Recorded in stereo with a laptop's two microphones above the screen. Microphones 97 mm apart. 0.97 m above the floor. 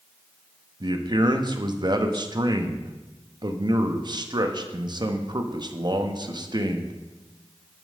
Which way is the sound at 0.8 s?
45° right (ahead or behind).